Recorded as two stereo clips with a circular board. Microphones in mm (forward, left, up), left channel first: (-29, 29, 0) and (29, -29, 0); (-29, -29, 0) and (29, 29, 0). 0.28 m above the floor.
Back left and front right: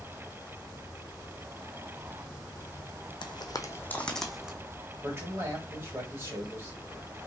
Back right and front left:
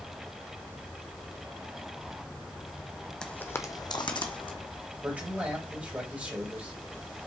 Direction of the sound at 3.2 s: 145° left.